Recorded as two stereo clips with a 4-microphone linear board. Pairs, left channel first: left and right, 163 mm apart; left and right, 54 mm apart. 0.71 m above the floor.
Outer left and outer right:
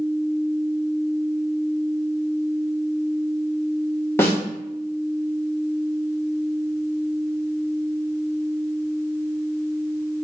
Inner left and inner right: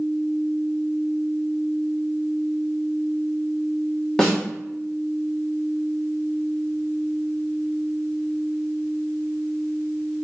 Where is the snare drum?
15° left (ahead or behind), 1.3 m.